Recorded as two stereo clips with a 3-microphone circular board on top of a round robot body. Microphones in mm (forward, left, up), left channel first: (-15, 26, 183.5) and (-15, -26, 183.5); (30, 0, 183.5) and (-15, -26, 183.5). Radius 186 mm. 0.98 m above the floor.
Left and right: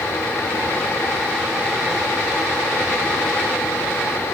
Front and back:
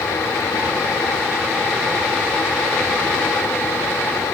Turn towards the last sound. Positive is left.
No sound to turn to.